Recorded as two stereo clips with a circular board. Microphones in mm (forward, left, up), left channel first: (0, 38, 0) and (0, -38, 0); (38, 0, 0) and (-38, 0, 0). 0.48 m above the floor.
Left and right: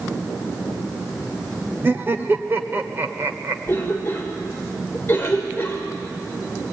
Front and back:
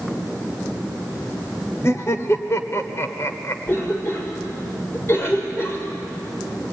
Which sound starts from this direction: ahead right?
Laughter, at 1.8 s.